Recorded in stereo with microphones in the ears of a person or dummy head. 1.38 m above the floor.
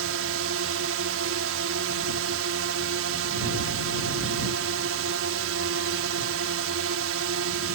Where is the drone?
75° right (ahead or behind).